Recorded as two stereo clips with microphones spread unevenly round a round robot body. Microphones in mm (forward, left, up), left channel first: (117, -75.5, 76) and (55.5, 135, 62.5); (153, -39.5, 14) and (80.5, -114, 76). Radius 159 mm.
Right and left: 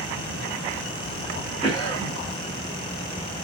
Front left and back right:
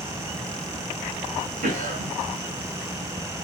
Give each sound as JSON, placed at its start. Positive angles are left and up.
{"t": 1.6, "sound": "a cough", "azimuth_deg": -155, "distance_m": 2.0}